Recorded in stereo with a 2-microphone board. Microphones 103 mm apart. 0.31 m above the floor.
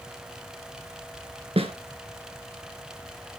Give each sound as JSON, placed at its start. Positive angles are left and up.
{"t": 1.6, "sound": "a snare drum", "side_deg": -70, "distance_m": 1.3}